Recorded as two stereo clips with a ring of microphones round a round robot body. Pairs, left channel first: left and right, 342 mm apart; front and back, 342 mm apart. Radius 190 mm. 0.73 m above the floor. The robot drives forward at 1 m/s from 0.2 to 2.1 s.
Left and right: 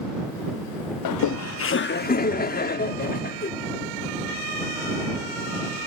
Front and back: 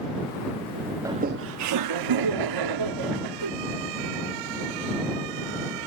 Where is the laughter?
100° left; by 3.5 s 155° left.